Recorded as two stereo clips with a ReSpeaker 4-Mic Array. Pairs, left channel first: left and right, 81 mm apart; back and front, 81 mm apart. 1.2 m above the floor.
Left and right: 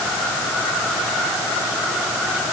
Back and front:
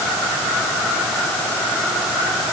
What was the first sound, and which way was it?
Only background noise.